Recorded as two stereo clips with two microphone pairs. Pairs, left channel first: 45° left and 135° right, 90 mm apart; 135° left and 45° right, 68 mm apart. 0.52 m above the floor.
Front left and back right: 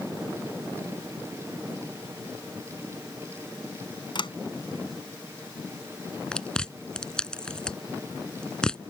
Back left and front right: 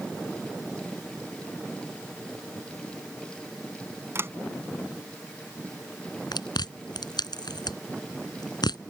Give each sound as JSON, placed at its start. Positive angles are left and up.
{"t": 4.2, "sound": "a sliding door", "azimuth_deg": 10}
{"t": 6.3, "sound": "chewing", "azimuth_deg": 125}